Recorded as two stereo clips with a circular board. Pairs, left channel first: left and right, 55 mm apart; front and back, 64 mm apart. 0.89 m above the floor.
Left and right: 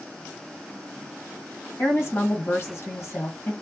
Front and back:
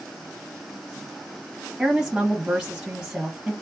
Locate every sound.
1.8 s a woman speaking: 100° left, 1.3 m